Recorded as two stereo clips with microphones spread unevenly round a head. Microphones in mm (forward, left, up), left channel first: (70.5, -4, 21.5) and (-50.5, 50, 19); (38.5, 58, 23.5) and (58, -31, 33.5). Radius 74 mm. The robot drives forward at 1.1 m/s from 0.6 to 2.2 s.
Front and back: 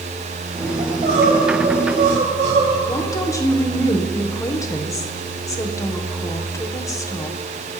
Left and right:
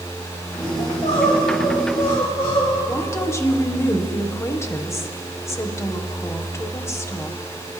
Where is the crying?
125° left, 7.5 m; by 2.8 s 135° left, 8.5 m.